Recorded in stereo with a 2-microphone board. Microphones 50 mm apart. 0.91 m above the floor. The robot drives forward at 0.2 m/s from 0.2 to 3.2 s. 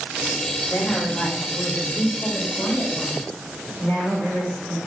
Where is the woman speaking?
75° left (ahead or behind), 1.5 m; by 4.8 s 60° left (ahead or behind), 1.7 m.